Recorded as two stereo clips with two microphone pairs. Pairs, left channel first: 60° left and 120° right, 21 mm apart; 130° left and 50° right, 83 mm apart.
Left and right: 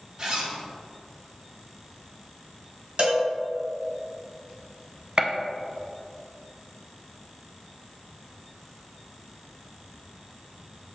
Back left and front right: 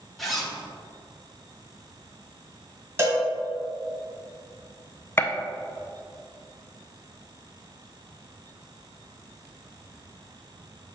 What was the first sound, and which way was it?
A zipper, 145° right.